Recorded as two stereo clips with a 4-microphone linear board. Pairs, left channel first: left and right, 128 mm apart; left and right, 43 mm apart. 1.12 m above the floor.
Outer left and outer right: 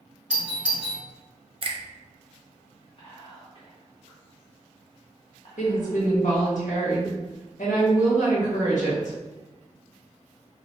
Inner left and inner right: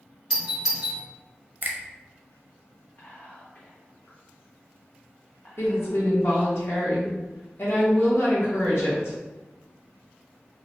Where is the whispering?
55° left (ahead or behind), 1.0 m.